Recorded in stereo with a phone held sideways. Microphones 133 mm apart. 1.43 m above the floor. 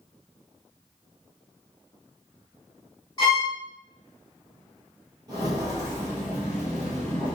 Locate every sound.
3.2 s a violin: 30° left (ahead or behind), 1.5 m
5.3 s footsteps: 30° right (ahead or behind), 1.6 m; by 7.3 s 10° left (ahead or behind), 1.5 m